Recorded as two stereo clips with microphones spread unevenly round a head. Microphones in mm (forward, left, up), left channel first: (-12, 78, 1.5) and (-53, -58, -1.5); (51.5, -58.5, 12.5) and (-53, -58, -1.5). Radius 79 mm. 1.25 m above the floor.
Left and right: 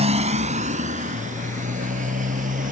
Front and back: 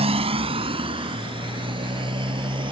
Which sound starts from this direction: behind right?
A motorcycle, at 0.0 s.